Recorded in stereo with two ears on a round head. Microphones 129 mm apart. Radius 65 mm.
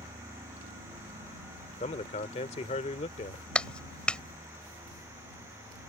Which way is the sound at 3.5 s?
5° left (ahead or behind).